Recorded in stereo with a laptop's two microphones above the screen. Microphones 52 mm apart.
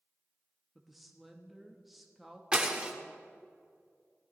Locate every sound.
0.8 s a woman speaking: centre (ahead or behind), 1.1 m
2.5 s breaking glass: 20° right (ahead or behind), 0.8 m